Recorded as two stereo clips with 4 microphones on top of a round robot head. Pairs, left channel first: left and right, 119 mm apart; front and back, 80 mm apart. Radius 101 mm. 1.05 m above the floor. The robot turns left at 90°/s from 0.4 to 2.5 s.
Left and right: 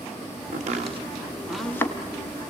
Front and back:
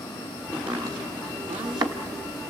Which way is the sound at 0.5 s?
85° right.